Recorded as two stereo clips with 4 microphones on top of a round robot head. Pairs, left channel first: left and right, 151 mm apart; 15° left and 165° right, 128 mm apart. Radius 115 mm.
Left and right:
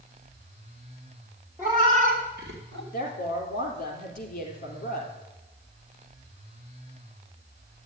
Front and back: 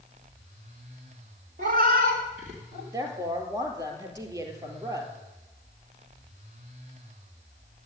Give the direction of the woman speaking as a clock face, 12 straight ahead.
8 o'clock.